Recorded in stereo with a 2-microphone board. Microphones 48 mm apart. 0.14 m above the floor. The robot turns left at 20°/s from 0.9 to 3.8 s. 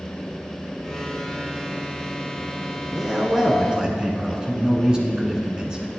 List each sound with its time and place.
2.9 s a man speaking: 10° right (ahead or behind), 1.4 m; by 6.0 s 15° right (ahead or behind), 1.4 m